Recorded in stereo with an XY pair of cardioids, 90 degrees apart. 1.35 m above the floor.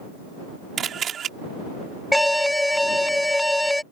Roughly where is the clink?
No clink in this recording.